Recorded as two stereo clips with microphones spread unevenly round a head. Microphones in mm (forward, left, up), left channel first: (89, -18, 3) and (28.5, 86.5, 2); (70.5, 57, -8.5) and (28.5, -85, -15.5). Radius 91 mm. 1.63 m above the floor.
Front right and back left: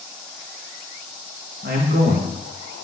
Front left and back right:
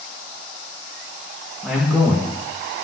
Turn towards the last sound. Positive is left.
turn(degrees=165)